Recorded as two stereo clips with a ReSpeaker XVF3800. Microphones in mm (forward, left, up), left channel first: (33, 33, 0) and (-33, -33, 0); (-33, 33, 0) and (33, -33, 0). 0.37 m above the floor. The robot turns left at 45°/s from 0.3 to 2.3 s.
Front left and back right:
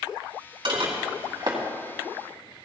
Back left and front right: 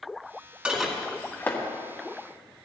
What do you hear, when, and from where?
0.7 s dishes clattering: 125° right, 1.9 m; by 1.6 s 170° right, 1.9 m